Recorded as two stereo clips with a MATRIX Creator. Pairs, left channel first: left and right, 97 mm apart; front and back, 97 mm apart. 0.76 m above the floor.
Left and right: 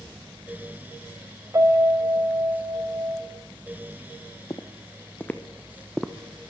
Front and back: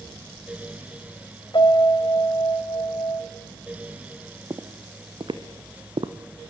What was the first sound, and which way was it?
A piano, 35° right.